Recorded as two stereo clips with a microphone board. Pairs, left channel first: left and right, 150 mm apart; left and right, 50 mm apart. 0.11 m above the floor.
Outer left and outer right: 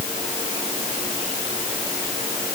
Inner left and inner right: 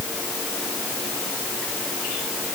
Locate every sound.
Only background noise.